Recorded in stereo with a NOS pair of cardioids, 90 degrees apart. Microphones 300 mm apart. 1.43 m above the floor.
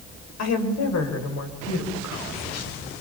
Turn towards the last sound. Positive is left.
turn(degrees=55)